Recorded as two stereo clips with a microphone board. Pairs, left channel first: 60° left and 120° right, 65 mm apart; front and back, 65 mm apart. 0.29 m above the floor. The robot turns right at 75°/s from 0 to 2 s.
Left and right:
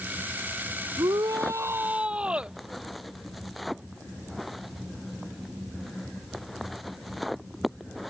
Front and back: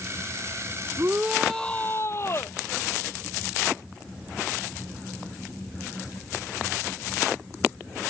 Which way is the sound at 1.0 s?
125° right.